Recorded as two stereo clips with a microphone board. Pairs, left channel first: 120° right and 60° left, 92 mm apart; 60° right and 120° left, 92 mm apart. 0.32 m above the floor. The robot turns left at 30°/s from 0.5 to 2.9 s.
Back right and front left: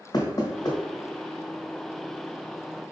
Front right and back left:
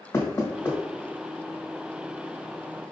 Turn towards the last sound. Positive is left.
turn(degrees=175)